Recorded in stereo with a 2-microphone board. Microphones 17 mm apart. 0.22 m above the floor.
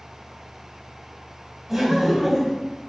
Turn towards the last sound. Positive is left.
turn(degrees=-15)  # may be behind; listen again after turning